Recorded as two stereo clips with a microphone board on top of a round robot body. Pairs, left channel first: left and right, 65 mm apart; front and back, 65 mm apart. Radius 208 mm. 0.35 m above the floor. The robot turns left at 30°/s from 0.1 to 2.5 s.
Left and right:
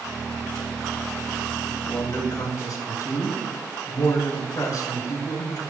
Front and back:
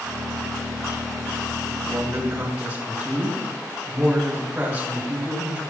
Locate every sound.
1.8 s a man speaking: 130° left, 4.5 m; by 5.6 s 115° left, 4.5 m